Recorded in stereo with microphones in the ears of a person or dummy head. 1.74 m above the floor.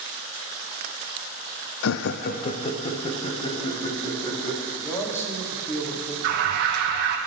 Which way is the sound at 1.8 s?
70° left (ahead or behind).